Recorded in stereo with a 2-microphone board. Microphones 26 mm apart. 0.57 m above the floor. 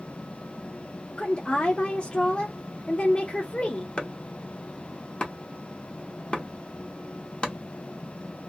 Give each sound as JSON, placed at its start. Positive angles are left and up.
{"t": 1.2, "sound": "a woman speaking", "side_deg": 40, "distance_m": 0.8}
{"t": 4.0, "sound": "chopping", "side_deg": 45, "distance_m": 0.8}